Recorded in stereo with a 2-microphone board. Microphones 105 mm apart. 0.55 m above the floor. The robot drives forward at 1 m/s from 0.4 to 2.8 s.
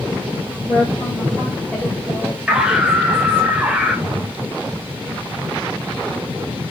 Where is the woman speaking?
5° left (ahead or behind), 4.5 m; by 3.5 s 10° left (ahead or behind), 2.5 m.